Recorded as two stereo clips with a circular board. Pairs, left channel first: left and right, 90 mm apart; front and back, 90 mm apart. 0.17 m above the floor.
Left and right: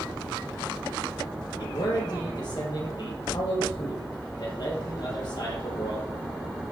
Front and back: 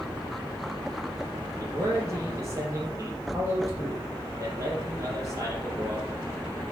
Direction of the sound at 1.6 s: 125° left.